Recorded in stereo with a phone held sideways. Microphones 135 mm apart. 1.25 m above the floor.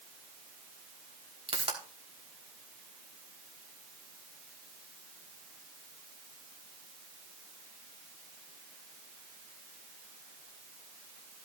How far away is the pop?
About 4 m.